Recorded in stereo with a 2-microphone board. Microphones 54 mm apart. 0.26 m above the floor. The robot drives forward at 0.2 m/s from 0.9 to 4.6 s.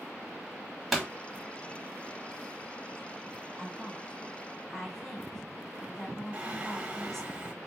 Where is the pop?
Centre (ahead or behind), 1.1 m.